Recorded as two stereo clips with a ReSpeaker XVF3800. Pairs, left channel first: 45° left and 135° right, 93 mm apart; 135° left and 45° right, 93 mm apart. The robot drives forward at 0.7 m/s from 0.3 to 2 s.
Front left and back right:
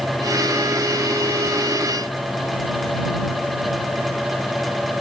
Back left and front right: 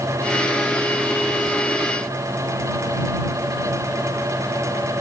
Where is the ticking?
I don't hear ticking.